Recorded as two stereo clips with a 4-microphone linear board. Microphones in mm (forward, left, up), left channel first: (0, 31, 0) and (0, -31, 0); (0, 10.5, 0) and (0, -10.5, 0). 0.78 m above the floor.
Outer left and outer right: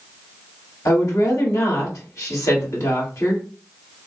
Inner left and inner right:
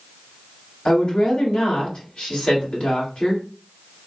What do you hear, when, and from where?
0.8 s a woman speaking: 60° left (ahead or behind), 2 m